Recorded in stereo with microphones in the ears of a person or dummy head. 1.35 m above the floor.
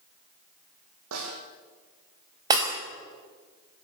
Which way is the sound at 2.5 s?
25° right (ahead or behind).